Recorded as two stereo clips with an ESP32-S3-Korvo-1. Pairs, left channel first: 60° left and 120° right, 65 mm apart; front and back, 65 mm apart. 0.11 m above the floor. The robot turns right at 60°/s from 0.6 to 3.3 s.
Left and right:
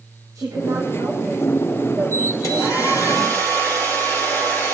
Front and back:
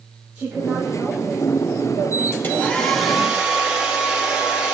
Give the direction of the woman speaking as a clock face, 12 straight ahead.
4 o'clock.